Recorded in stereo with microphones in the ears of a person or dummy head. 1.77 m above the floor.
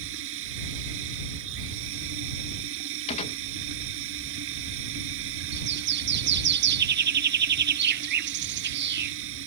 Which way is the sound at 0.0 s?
75° right (ahead or behind).